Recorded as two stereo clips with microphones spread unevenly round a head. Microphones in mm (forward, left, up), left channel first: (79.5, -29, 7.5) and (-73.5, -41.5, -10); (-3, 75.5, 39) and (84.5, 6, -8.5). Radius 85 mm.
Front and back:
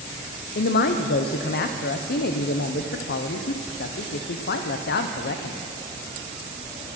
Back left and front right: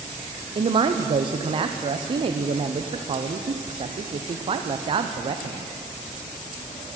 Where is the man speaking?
15° right, 0.6 m.